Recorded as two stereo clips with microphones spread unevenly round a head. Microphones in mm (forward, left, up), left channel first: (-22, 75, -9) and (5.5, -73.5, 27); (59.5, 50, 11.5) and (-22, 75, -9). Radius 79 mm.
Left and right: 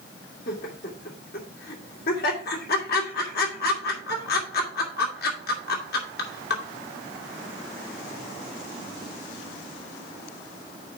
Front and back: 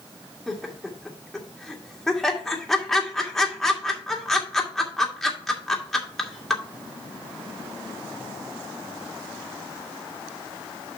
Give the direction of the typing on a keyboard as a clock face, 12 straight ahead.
I don't hear typing on a keyboard.